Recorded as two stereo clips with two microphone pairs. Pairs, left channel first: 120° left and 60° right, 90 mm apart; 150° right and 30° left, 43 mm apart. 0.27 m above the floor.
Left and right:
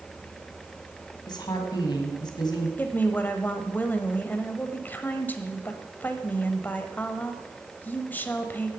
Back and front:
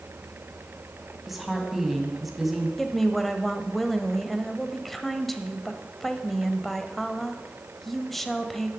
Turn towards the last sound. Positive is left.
turn(degrees=135)